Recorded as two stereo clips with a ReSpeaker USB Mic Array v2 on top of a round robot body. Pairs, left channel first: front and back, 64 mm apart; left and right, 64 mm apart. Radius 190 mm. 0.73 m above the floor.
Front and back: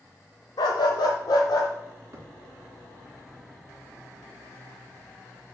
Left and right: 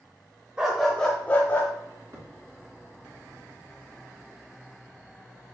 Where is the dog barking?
15° right, 0.8 m; by 1.7 s 30° left, 1.4 m.